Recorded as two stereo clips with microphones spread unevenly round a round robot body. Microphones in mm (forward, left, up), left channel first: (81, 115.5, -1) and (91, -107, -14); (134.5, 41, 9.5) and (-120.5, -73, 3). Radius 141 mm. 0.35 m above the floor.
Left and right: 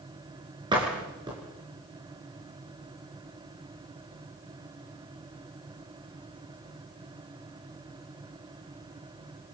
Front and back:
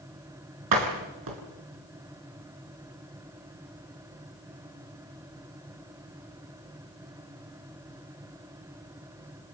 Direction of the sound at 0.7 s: 160° right.